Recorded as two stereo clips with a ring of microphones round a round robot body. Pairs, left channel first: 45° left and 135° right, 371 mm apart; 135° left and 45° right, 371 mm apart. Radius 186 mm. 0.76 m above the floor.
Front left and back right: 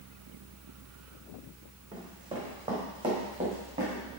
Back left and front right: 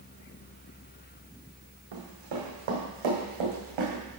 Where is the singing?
I don't hear singing.